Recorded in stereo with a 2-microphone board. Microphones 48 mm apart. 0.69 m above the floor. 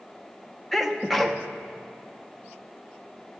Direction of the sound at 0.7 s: Centre (ahead or behind).